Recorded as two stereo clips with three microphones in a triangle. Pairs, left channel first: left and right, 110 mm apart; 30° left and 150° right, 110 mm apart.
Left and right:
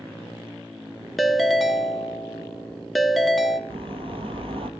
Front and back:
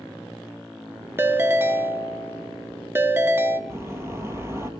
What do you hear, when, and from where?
1.2 s a ringtone: straight behind, 0.5 m
3.7 s a bird: 90° right, 1.2 m